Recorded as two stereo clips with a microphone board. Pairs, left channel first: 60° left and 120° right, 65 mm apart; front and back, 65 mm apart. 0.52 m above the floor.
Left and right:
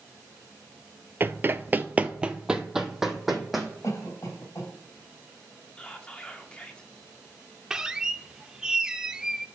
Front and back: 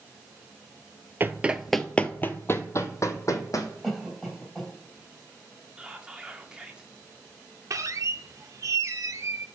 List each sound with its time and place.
1.2 s running footsteps: 150° right, 0.6 m; by 3.7 s 30° right, 1.6 m
3.8 s a cough: 90° left, 3.5 m
5.8 s whispering: 115° left, 1.2 m
7.7 s a squeak: 165° left, 0.5 m